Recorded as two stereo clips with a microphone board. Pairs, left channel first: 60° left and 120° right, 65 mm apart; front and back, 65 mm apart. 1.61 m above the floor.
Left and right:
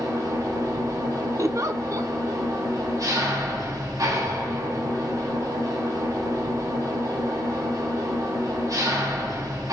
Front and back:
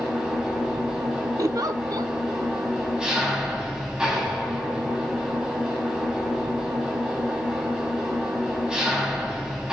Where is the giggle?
155° right, 0.5 m.